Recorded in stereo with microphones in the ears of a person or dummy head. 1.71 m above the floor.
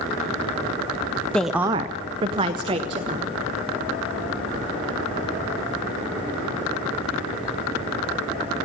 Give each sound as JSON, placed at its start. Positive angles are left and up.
{"t": 1.3, "sound": "a woman speaking", "side_deg": 5, "distance_m": 0.7}